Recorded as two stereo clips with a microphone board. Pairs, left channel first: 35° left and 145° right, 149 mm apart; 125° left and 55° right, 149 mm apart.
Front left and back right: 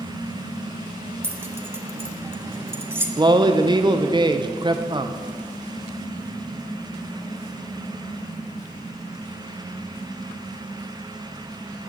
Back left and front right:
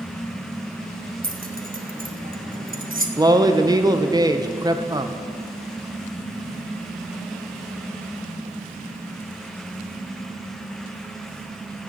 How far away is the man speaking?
About 0.7 m.